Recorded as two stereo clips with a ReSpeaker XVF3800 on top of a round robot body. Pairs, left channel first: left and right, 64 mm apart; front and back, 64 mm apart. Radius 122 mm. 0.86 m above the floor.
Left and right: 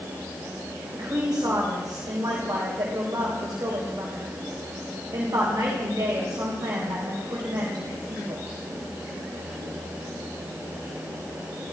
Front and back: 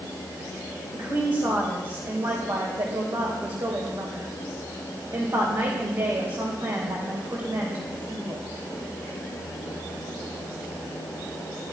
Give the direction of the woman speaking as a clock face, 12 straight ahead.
5 o'clock.